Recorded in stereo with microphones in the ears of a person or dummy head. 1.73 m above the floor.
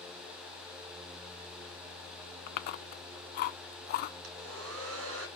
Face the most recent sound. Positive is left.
turn(degrees=-80)